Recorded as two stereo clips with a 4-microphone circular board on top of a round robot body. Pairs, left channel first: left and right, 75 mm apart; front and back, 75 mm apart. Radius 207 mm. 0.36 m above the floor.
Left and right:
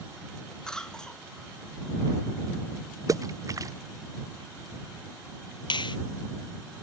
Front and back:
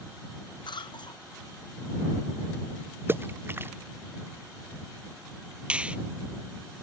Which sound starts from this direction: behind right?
A splash, at 3.1 s.